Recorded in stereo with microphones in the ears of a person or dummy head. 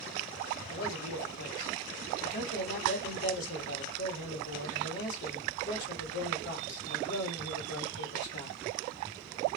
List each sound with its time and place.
0.7 s a man speaking: 75° left (ahead or behind), 1.5 m